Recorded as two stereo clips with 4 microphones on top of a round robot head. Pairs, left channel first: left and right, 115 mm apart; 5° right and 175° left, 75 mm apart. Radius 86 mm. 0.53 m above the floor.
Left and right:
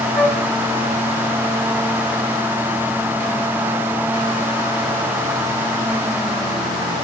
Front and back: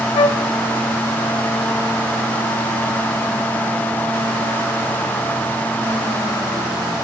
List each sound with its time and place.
0.1 s a flute: straight ahead, 0.7 m